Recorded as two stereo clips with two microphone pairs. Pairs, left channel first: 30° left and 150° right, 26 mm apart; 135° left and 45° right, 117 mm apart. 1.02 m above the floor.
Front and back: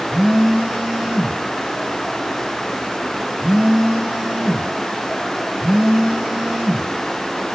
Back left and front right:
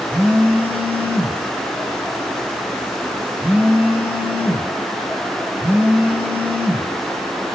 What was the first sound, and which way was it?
A phone buzzing, 115° right.